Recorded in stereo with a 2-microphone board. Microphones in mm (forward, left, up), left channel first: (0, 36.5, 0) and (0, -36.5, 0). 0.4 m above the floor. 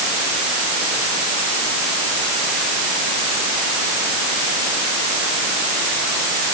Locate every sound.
Only background noise.